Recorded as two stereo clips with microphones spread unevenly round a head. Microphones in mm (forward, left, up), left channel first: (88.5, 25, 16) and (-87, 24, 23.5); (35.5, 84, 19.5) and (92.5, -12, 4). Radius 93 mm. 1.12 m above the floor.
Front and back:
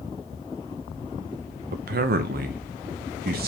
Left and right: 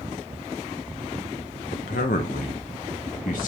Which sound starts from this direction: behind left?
A man speaking, at 1.7 s.